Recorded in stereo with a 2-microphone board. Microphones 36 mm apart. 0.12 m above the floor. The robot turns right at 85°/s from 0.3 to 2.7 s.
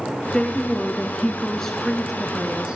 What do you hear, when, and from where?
0.3 s a woman speaking: 20° left (ahead or behind), 1.4 m; by 2.8 s 25° right (ahead or behind), 1.4 m